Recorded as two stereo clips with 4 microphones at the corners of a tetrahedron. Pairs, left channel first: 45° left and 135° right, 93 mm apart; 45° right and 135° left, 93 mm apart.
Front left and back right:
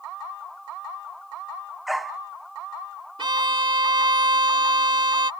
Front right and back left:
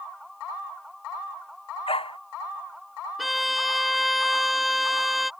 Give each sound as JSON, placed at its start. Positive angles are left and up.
{"t": 1.9, "sound": "a dog barking", "azimuth_deg": -45}
{"t": 3.2, "sound": "a violin", "azimuth_deg": -135}